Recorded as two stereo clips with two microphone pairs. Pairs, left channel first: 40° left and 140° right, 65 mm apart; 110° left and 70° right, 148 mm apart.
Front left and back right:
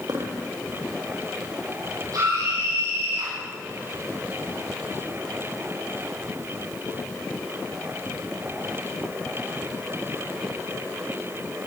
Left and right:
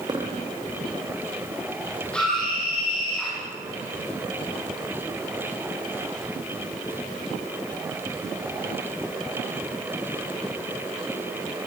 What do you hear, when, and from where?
0.1 s a dropped coin: 130° right, 3 m
2.1 s a scream: 165° right, 6.5 m